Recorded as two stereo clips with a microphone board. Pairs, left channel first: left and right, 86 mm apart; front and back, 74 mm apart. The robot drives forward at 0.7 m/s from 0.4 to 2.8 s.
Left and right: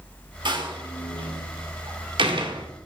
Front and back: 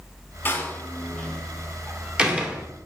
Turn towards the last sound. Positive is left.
turn(degrees=-115)